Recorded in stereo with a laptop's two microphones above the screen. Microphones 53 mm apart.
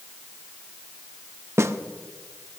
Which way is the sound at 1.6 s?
60° right (ahead or behind).